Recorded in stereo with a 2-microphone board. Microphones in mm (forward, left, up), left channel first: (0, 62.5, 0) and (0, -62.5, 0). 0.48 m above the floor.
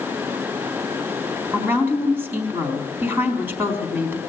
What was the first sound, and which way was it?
A woman speaking, 15° right (ahead or behind).